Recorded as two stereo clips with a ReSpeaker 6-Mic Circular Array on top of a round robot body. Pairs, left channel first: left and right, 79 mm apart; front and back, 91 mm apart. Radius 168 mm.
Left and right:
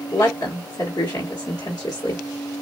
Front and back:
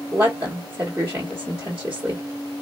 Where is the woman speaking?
115° left, 1.6 m.